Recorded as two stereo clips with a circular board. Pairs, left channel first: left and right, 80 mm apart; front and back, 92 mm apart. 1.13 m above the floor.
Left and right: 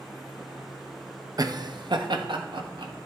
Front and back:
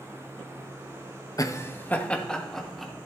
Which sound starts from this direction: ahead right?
Laughter, at 1.4 s.